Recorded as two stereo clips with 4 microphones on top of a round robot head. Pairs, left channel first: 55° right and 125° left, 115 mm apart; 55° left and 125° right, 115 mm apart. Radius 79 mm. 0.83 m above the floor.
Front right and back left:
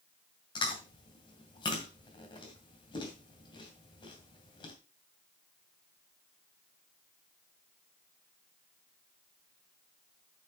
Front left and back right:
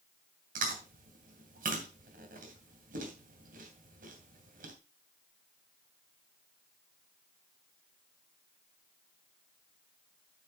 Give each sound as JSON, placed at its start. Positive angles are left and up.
{"t": 0.6, "sound": "chewing", "azimuth_deg": -110, "distance_m": 2.5}